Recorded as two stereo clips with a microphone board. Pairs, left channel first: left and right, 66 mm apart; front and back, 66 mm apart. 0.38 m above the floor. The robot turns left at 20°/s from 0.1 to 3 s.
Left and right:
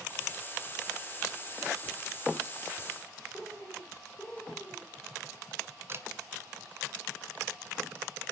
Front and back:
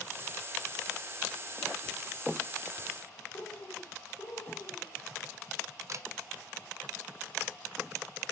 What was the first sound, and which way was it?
A bird, 20° left.